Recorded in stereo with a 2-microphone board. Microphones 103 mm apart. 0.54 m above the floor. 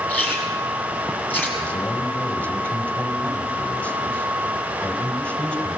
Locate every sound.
0.1 s chewing: 20° left (ahead or behind), 5.5 m
1.6 s a man speaking: 15° left (ahead or behind), 2.5 m